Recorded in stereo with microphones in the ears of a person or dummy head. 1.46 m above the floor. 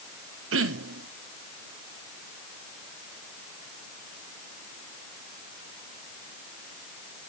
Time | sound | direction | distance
0.5 | throat clearing | 65° right (ahead or behind) | 0.9 m